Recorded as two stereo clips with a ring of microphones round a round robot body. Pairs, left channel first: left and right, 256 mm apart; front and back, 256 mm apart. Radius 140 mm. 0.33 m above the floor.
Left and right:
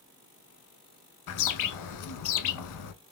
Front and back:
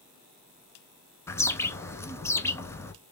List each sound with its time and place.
1.3 s a bird: 80° left, 0.8 m